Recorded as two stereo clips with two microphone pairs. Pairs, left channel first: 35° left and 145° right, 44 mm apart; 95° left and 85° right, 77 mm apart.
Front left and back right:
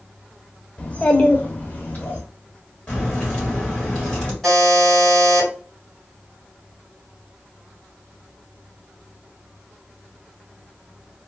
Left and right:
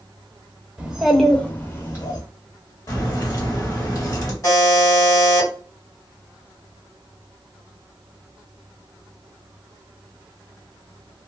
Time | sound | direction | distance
0.8 | a child speaking | 15° right | 0.8 m
2.9 | a crack | 105° left | 1.5 m
4.4 | a buzzer | 125° left | 2 m